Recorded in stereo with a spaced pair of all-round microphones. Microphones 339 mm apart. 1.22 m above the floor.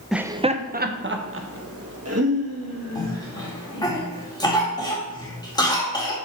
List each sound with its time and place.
0.1 s laughter: centre (ahead or behind), 0.5 m; by 3.9 s 55° right (ahead or behind), 2.5 m
3.0 s a cough: 10° left (ahead or behind), 2 m